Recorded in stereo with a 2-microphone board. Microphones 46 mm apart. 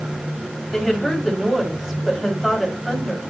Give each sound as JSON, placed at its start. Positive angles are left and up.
{"t": 0.7, "sound": "a woman speaking", "side_deg": 0, "distance_m": 2.5}